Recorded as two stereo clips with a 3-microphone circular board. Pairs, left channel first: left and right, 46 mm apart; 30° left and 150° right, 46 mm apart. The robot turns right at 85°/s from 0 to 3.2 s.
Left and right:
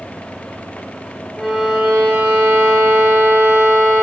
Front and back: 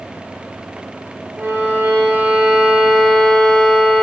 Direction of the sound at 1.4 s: 170° left.